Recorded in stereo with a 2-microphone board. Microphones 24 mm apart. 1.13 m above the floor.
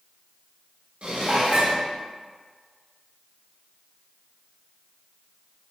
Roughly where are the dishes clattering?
Right.